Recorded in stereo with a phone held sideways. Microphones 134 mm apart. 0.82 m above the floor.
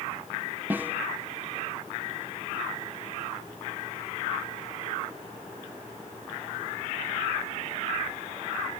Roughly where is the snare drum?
Centre.